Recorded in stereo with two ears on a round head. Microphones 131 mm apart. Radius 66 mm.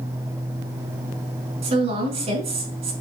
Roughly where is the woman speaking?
Right.